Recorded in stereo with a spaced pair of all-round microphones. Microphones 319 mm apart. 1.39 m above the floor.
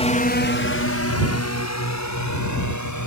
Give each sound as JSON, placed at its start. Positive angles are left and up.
{"t": 0.0, "sound": "a drone", "side_deg": 20}